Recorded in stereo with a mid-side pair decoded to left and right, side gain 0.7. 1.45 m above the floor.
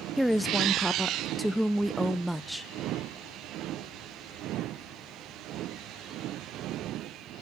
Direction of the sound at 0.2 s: 5° right.